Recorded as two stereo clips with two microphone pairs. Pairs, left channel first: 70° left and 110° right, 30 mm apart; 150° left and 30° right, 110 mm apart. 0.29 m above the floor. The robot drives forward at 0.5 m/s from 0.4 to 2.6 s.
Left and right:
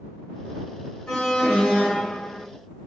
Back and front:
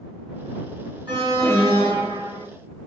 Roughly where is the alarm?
Ahead.